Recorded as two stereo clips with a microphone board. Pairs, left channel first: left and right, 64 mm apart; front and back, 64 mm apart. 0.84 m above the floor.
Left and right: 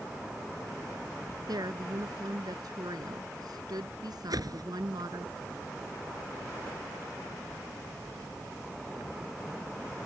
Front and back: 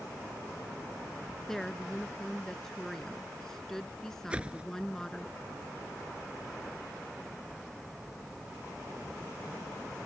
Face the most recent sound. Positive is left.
turn(degrees=-110)